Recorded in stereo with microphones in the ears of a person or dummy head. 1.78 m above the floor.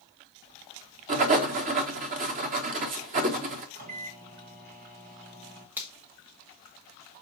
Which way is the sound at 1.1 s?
40° right (ahead or behind).